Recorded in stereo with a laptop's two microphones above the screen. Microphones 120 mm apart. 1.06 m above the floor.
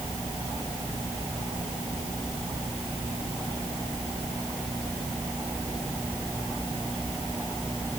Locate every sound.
Only background noise.